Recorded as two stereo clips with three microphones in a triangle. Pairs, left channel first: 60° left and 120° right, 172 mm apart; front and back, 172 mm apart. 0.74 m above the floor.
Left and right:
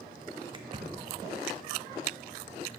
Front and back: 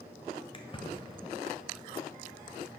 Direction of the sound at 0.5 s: 55° right.